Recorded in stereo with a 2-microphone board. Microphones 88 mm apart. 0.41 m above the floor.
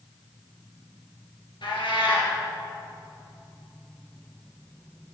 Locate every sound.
1.6 s a cat meowing: 75° left (ahead or behind), 3 m